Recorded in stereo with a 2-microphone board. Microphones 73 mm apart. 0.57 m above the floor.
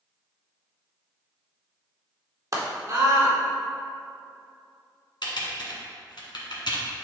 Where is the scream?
50° right (ahead or behind), 1.8 m.